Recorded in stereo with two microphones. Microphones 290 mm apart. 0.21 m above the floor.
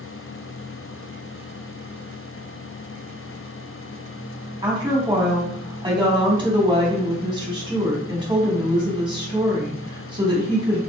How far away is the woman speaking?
About 1.2 m.